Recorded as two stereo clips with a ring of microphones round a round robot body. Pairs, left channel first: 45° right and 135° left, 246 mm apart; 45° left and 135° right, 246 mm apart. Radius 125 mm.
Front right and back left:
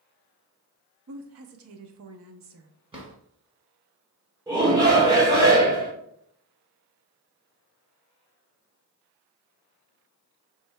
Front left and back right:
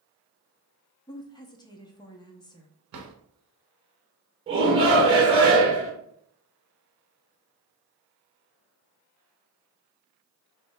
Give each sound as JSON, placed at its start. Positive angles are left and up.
{"t": 1.1, "sound": "a woman speaking", "azimuth_deg": 115, "distance_m": 0.8}
{"t": 2.9, "sound": "a drawer", "azimuth_deg": -155, "distance_m": 1.2}
{"t": 4.5, "sound": "a shout", "azimuth_deg": -170, "distance_m": 1.1}